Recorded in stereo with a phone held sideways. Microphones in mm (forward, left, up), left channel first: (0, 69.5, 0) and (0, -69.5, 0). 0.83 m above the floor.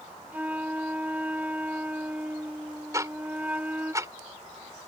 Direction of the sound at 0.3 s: 10° right (ahead or behind).